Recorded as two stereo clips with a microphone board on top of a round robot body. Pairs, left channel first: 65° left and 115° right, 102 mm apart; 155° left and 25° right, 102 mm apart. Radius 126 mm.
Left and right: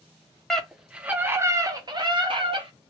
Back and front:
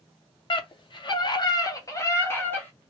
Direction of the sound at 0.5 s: 150° left.